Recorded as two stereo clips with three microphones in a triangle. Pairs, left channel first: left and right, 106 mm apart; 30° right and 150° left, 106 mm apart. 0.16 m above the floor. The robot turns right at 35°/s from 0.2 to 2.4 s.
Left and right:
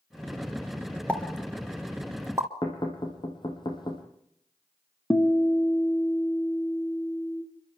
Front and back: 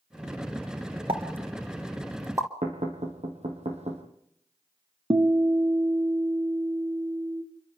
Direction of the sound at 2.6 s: 135° left.